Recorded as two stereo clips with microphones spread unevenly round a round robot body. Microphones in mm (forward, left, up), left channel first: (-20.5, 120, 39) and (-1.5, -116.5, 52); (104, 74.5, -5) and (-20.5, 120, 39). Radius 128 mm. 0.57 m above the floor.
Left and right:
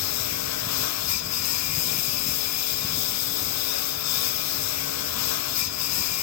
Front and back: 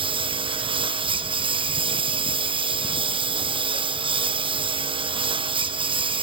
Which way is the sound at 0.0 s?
110° left.